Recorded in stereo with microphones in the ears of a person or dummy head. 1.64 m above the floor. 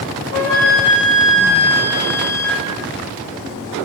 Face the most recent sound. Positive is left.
turn(degrees=40)  # may be behind; listen again after turning